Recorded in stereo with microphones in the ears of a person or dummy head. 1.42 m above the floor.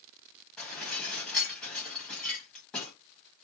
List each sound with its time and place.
0.6 s dishes clattering: 5° left (ahead or behind), 1.1 m